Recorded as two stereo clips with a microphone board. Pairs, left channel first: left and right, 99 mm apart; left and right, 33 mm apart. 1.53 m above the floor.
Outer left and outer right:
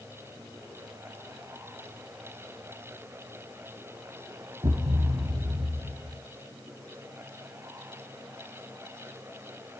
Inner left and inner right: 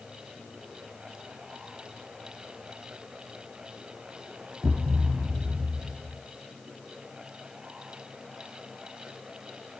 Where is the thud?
50° right (ahead or behind), 1.4 m.